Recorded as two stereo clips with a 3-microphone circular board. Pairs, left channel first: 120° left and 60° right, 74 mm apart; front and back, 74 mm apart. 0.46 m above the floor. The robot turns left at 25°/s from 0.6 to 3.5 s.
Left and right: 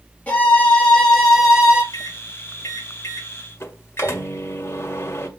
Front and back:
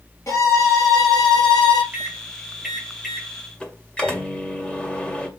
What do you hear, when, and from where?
0.3 s a violin: 50° left, 3.5 m; by 1.8 s 20° left, 3.5 m
1.9 s a microwave: 115° left, 1.8 m; by 5.3 s 75° left, 1.8 m